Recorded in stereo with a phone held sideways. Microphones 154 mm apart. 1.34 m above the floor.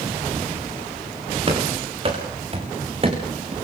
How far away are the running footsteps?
About 7.5 m.